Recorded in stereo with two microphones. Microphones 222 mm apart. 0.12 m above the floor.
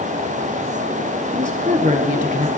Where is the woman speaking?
35° right (ahead or behind), 1.3 m.